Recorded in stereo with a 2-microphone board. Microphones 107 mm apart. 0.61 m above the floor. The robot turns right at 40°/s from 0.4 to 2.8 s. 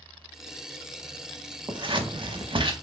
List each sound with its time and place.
1.7 s scissors: 45° right (ahead or behind), 0.6 m; by 2.7 s 50° right (ahead or behind), 0.6 m